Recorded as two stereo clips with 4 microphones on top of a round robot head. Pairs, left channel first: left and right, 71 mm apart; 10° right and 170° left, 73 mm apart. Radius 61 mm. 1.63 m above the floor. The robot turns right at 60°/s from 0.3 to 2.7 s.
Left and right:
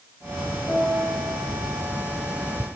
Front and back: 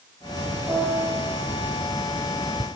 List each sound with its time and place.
0.7 s a piano: 135° right, 1.7 m; by 1.2 s 100° right, 1.7 m